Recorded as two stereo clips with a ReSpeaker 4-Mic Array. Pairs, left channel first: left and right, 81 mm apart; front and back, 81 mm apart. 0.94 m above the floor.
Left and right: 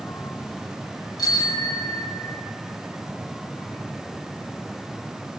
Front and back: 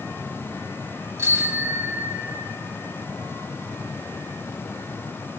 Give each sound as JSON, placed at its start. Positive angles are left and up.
{"t": 1.2, "sound": "a bicycle bell", "azimuth_deg": 125, "distance_m": 4.5}